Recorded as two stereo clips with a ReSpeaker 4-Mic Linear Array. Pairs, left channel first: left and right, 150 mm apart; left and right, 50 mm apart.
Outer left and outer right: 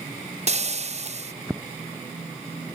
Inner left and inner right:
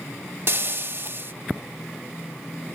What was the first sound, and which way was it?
Frying, 50° right (ahead or behind).